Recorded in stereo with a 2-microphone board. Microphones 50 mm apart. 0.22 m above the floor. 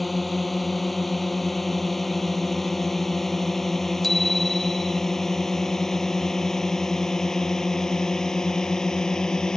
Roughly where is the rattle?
No rattle in this recording.